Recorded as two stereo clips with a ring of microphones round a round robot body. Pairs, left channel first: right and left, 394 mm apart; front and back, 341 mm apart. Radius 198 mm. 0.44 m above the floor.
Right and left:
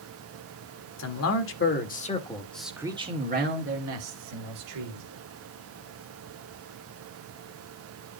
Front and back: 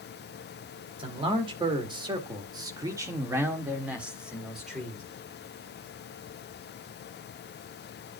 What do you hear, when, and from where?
1.0 s a man speaking: 110° right, 1.7 m; by 5.0 s 90° left, 2 m